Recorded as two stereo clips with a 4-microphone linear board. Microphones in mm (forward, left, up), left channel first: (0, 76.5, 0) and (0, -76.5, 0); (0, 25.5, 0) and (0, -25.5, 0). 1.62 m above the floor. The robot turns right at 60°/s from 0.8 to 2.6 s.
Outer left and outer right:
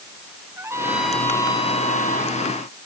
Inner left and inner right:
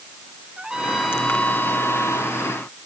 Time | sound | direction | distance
0.6 | a trumpet | 15° right | ?